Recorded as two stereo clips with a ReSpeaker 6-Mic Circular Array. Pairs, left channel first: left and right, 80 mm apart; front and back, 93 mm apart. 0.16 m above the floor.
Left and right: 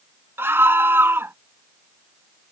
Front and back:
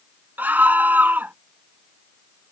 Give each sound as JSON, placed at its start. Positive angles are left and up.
{"t": 0.4, "sound": "a scream", "azimuth_deg": -125}